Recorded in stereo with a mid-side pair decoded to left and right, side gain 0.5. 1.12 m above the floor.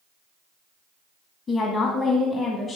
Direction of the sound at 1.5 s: 45° left.